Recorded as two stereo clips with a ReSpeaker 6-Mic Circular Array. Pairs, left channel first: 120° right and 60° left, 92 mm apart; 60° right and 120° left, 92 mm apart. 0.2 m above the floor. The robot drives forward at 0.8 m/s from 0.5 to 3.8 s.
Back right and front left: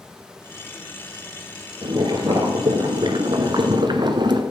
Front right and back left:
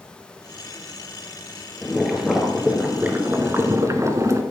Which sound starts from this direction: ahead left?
Boiling, at 1.8 s.